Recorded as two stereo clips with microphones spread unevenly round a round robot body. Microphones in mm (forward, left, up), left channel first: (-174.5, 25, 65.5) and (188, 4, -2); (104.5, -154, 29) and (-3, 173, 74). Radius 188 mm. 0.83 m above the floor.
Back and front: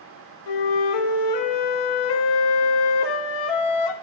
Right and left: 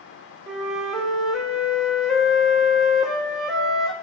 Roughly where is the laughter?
I don't hear laughter.